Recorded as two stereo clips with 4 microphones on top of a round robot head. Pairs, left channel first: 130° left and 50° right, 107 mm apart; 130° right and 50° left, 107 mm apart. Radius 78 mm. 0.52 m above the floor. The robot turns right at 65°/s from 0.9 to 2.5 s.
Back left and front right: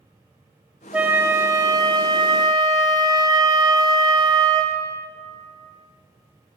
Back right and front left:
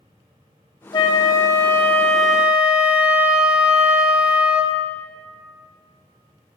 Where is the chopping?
I don't hear chopping.